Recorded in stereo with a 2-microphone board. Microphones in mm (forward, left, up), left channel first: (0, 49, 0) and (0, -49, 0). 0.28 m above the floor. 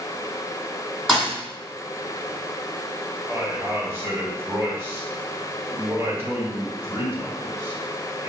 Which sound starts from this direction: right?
A man speaking, at 3.3 s.